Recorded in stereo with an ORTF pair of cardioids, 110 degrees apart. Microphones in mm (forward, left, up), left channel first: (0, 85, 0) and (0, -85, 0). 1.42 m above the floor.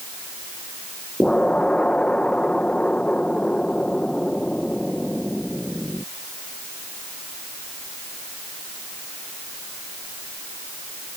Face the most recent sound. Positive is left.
turn(degrees=5)